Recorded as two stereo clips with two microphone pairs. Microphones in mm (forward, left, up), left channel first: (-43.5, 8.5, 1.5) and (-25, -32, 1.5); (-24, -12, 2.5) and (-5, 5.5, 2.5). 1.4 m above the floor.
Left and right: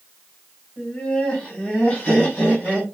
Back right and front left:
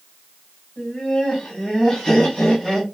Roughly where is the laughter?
Behind.